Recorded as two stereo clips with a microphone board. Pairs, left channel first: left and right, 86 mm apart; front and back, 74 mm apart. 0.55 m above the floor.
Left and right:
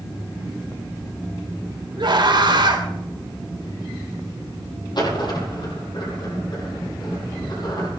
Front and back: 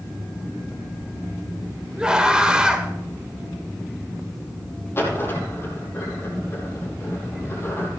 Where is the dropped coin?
55° left, 5.5 m.